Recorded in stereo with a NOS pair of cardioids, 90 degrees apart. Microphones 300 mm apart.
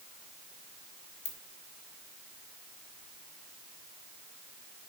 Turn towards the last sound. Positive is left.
turn(degrees=55)